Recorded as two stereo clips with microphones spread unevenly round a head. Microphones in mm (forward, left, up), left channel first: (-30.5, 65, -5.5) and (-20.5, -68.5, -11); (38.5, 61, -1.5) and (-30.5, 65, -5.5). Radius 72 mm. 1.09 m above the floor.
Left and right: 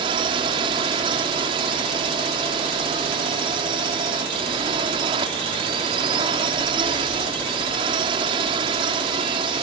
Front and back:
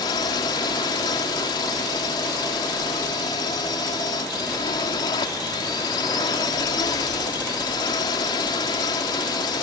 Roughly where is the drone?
Ahead right.